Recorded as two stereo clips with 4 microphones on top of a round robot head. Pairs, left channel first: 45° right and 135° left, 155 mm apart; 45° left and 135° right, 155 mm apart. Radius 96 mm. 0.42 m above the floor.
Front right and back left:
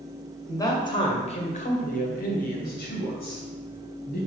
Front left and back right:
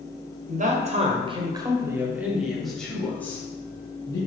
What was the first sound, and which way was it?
A man speaking, 115° right.